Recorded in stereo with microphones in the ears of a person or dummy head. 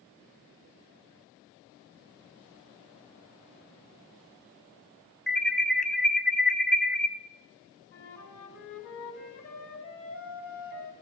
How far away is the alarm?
About 0.8 m.